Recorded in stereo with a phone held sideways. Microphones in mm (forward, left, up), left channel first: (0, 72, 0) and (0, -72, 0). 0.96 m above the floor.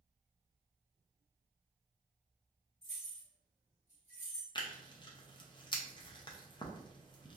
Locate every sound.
2.8 s keys jangling: 55° left (ahead or behind), 1.5 m
4.5 s tearing paper: 30° left (ahead or behind), 0.5 m